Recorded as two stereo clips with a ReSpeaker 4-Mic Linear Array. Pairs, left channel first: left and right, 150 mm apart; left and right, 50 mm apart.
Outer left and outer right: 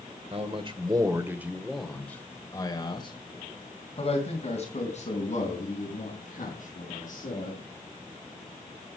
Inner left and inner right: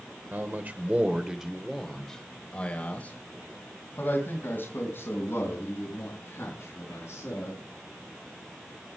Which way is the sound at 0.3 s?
45° right (ahead or behind).